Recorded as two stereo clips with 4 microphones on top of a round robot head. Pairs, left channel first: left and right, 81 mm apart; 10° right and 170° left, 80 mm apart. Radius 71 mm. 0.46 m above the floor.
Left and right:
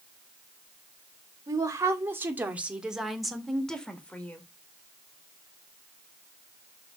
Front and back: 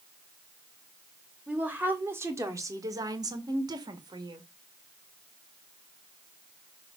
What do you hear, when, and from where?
1.5 s a woman speaking: 120° right, 1.4 m; by 4.4 s 160° left, 1.9 m